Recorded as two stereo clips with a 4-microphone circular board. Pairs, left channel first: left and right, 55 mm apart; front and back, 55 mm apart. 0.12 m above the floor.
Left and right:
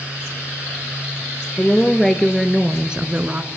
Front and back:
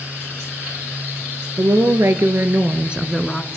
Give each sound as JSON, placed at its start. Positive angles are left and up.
{"t": 1.6, "sound": "a woman speaking", "azimuth_deg": 165, "distance_m": 3.0}